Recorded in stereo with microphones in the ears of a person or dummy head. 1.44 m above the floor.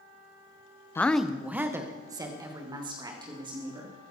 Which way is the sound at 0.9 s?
20° left (ahead or behind).